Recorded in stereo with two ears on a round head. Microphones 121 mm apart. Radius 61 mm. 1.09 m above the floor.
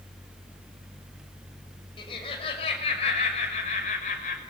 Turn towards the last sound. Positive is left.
turn(degrees=60)  # may be behind; listen again after turning